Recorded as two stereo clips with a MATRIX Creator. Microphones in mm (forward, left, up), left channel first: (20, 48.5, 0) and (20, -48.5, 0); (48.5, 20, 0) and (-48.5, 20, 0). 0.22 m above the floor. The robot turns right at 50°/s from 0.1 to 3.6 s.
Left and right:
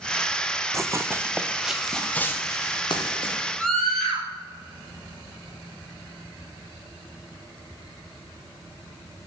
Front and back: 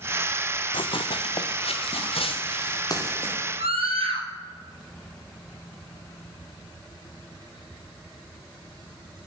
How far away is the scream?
About 5 m.